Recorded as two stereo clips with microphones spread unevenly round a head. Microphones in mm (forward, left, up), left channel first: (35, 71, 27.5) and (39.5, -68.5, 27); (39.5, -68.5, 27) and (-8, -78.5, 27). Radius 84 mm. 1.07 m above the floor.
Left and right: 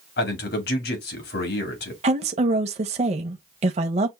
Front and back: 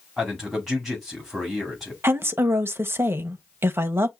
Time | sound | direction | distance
0.2 | a man speaking | 100° left | 2.0 m
2.0 | a woman speaking | 135° right | 0.8 m